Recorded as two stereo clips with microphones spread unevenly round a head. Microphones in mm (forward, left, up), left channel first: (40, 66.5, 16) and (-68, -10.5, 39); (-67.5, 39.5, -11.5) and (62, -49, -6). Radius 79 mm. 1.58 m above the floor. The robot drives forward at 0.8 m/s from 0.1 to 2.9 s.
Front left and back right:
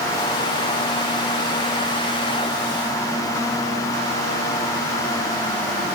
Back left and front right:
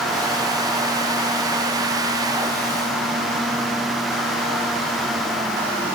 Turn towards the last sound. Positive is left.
No sound to turn to.